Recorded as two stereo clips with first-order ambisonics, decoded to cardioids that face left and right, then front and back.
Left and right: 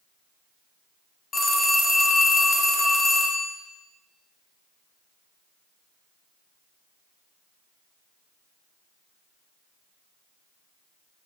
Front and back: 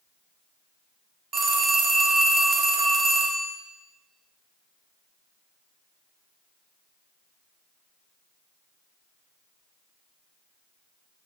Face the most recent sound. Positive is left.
turn(degrees=140)